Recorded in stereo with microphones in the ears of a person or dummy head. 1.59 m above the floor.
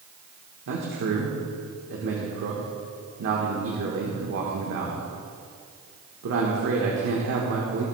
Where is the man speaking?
65° right (ahead or behind), 1.3 m.